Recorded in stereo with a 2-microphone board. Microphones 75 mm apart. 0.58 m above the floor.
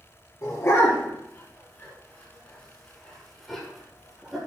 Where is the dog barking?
40° left (ahead or behind), 6 m; by 4.4 s 5° right (ahead or behind), 6 m.